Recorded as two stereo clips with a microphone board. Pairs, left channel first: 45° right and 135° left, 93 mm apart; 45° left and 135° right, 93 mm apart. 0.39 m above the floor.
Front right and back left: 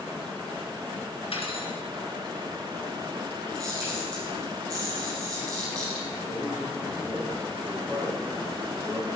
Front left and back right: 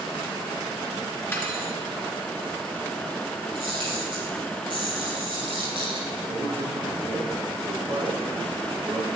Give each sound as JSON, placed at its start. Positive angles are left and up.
{"t": 1.3, "sound": "cutlery clinking", "azimuth_deg": -25, "distance_m": 3.5}
{"t": 3.5, "sound": "a camera shutter", "azimuth_deg": -170, "distance_m": 6.0}
{"t": 6.3, "sound": "a man speaking", "azimuth_deg": -175, "distance_m": 6.5}